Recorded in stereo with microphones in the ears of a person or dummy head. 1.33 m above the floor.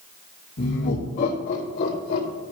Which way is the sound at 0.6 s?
45° left (ahead or behind).